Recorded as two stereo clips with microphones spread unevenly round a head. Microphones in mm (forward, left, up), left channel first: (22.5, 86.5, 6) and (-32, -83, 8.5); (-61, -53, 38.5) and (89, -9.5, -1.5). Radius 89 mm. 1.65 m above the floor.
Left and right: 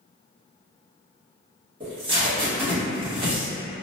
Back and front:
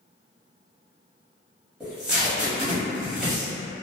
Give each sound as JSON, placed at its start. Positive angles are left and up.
{"t": 1.8, "sound": "tape being pulled", "azimuth_deg": -90, "distance_m": 1.2}